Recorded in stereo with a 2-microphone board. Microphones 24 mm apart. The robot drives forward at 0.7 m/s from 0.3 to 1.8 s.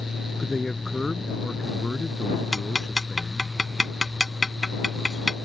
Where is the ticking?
5° right (ahead or behind).